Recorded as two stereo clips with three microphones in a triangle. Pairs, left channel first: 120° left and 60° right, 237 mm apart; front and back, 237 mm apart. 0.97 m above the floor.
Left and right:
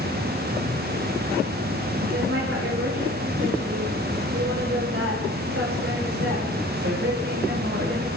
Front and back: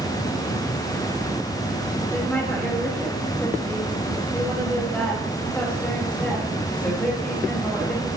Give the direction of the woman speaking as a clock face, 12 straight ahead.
3 o'clock.